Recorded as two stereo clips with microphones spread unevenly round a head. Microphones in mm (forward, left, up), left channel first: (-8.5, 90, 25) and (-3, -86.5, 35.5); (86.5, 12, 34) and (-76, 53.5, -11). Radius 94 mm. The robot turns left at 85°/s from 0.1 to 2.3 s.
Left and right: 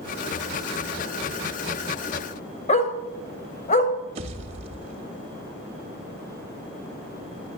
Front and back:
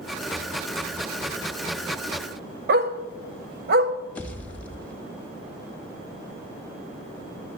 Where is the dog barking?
140° left, 1.1 m.